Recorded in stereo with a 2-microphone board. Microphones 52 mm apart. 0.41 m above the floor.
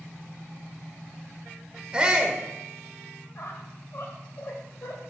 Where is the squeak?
55° left (ahead or behind), 1.4 m.